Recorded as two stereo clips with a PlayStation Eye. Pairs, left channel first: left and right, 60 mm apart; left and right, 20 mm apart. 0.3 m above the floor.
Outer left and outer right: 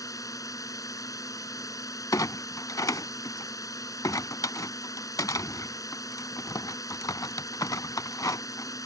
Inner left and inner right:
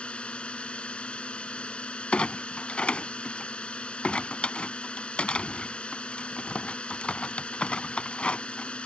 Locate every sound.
0.0 s a drone: 70° left (ahead or behind)
2.1 s a clunk: 80° left